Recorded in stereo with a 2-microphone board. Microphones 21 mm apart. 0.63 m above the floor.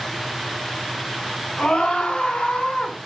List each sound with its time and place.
1.6 s a scream: 80° left, 5.5 m